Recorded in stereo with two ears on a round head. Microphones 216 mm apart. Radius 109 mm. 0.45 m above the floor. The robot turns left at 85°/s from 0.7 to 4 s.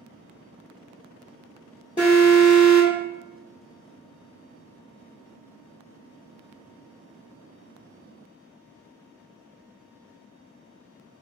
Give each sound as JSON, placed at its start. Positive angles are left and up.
{"t": 2.0, "sound": "an alarm", "side_deg": 15, "distance_m": 1.7}